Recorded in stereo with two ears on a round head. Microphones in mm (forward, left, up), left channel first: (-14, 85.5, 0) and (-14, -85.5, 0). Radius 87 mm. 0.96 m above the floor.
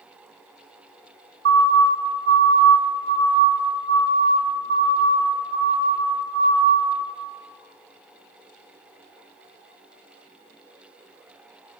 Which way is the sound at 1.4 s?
65° right (ahead or behind).